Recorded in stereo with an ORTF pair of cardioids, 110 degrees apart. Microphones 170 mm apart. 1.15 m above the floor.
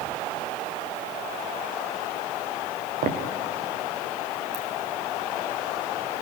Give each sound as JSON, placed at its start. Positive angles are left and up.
{"t": 3.0, "sound": "footsteps", "azimuth_deg": -60, "distance_m": 4.5}
{"t": 4.5, "sound": "a ringtone", "azimuth_deg": -35, "distance_m": 8.5}